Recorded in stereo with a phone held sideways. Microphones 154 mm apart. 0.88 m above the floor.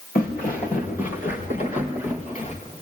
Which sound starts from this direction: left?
Footsteps, at 0.1 s.